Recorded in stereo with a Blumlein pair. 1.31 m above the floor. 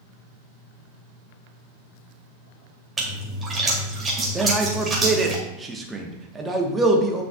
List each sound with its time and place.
3.0 s a splash: 15° right, 2.5 m
4.3 s a man speaking: 10° right, 1.3 m